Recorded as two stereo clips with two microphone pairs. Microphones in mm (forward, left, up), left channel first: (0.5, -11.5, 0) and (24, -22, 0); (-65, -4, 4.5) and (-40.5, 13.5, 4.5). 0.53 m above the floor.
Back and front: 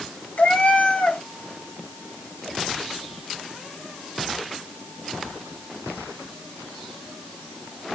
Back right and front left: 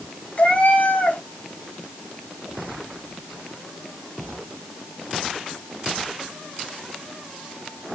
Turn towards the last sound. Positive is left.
turn(degrees=175)